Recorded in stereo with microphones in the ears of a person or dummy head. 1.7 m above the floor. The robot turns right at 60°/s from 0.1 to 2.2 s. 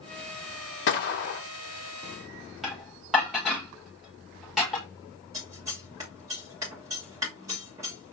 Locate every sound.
0.9 s a gunshot: 85° left, 0.8 m; by 1.4 s 120° left, 0.8 m
2.6 s dishes clattering: 5° right (ahead or behind), 1.4 m
5.3 s scissors: 15° right (ahead or behind), 1.5 m